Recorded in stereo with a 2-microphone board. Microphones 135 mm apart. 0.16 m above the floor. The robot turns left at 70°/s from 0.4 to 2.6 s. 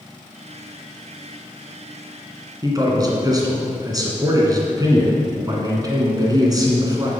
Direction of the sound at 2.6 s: 30° right (ahead or behind).